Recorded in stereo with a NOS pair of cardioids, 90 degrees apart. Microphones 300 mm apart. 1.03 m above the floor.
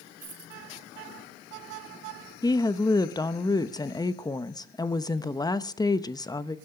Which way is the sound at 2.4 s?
15° left.